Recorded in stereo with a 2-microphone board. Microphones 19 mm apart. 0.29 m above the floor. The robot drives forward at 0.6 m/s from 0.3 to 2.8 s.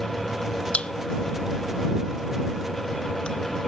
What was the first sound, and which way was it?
A pop, 70° left (ahead or behind).